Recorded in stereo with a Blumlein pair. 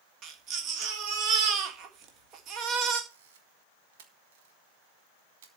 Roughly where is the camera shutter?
Ahead right.